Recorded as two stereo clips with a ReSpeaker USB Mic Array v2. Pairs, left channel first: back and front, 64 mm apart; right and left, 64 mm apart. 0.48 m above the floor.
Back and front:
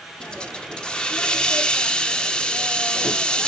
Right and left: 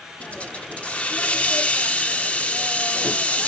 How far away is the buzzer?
No buzzer in this recording.